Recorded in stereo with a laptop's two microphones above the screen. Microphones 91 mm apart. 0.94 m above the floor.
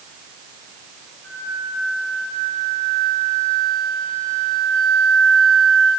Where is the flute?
25° left (ahead or behind), 7.5 m.